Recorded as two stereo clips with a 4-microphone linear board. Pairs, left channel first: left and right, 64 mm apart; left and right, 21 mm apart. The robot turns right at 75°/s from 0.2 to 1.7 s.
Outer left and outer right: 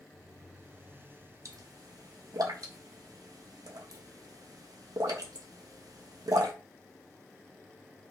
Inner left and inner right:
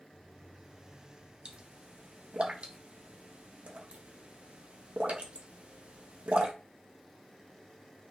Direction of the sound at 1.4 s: 55° right (ahead or behind).